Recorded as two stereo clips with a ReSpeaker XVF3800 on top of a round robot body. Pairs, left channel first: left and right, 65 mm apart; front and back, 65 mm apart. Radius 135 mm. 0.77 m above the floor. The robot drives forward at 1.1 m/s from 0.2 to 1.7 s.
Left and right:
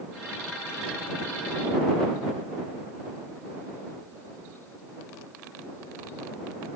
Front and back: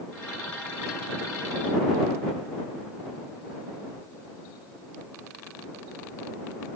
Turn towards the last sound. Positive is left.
No sound to turn to.